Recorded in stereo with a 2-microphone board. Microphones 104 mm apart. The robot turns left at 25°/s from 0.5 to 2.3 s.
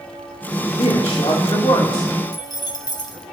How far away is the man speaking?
About 3 m.